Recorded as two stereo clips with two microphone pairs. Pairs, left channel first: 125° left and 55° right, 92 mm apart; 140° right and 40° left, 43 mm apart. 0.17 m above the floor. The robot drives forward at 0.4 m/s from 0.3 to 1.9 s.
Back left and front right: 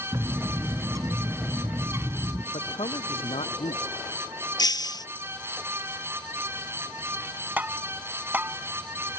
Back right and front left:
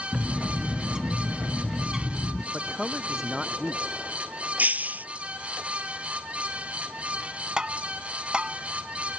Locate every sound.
0.1 s a bird: 20° right; by 2.4 s 35° right
2.5 s a man speaking: 120° left
4.6 s breaking glass: 85° left
7.6 s tapping: 5° right